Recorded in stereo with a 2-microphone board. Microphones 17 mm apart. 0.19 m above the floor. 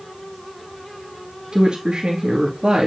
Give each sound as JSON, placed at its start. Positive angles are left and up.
{"t": 1.5, "sound": "a woman speaking", "side_deg": -60, "distance_m": 2.5}